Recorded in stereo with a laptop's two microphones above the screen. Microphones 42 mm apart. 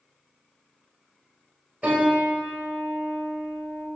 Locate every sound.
1.8 s a piano: 35° right (ahead or behind), 1.9 m